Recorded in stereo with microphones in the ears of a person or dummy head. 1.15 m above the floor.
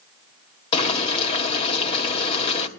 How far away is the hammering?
No hammering in this recording.